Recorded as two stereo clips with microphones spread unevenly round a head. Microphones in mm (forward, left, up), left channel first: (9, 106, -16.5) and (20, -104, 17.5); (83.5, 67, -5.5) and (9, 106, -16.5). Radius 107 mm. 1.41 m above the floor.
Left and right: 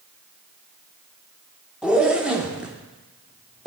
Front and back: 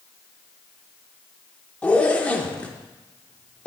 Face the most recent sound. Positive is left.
turn(degrees=-35)